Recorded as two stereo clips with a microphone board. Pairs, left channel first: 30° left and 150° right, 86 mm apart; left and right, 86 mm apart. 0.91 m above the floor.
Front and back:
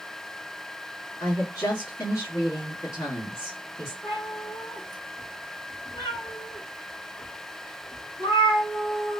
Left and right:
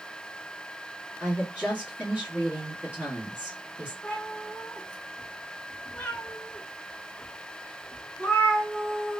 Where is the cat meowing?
15° left, 1.8 m.